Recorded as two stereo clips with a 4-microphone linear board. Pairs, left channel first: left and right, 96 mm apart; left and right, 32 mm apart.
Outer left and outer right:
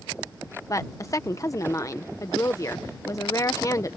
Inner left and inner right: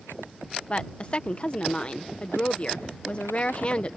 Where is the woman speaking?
35° left (ahead or behind).